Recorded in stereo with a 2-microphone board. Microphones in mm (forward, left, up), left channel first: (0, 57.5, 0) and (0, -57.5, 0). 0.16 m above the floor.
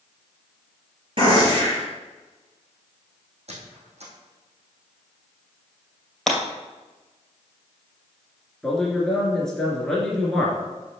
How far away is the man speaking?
About 2.5 m.